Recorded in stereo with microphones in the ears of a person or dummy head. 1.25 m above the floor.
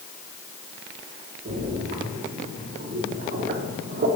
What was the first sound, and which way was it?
A splash, 50° right (ahead or behind).